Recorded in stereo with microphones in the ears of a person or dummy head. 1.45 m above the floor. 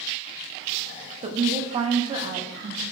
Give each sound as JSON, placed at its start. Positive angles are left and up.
{"t": 1.2, "sound": "a woman speaking", "side_deg": -30, "distance_m": 0.6}